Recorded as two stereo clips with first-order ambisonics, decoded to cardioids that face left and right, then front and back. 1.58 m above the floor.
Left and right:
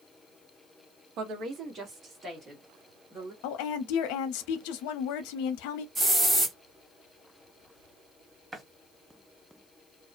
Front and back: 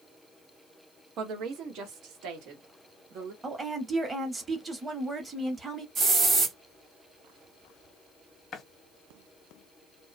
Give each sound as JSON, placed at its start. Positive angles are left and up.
{"t": 1.2, "sound": "a woman speaking", "azimuth_deg": -135, "distance_m": 0.7}
{"t": 3.4, "sound": "a woman speaking", "azimuth_deg": 105, "distance_m": 0.7}
{"t": 6.0, "sound": "a hiss", "azimuth_deg": -155, "distance_m": 1.5}
{"t": 8.5, "sound": "a running tap", "azimuth_deg": -25, "distance_m": 0.6}